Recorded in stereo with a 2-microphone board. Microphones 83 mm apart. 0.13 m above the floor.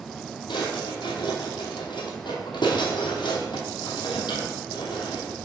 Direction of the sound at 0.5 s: 65° left (ahead or behind).